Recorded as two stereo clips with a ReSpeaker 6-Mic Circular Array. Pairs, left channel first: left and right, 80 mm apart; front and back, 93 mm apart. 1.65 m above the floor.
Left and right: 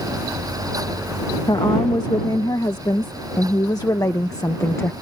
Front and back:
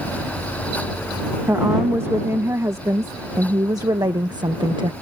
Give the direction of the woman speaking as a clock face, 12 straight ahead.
8 o'clock.